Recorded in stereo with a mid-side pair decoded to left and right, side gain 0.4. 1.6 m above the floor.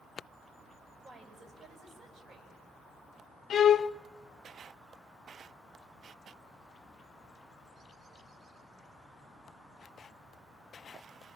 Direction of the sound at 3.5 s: 60° left.